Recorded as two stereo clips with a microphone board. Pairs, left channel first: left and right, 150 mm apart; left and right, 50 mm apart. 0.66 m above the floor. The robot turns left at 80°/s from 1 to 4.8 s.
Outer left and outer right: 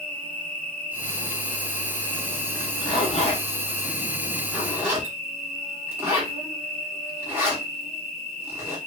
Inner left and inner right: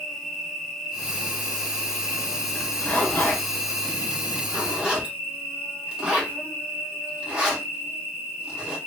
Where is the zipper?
15° left (ahead or behind), 0.9 m; by 8.8 s 15° right (ahead or behind), 0.9 m.